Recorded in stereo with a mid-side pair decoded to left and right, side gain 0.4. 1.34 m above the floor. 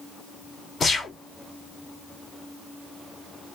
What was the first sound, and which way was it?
A gunshot, 45° left.